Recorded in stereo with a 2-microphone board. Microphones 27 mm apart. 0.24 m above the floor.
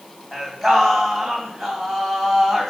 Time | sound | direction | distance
0.3 | singing | 10° left (ahead or behind) | 3 m